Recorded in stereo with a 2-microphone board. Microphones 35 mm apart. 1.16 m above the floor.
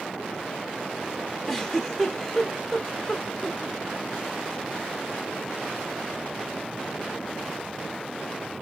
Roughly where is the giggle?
Centre.